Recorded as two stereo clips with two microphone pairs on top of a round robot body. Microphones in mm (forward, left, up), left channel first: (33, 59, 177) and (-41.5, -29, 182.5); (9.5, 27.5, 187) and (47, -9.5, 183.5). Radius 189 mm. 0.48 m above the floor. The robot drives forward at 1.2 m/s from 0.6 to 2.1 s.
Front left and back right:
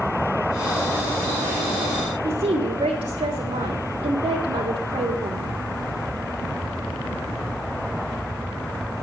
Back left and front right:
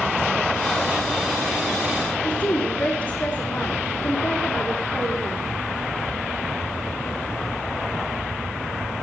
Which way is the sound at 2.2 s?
175° right.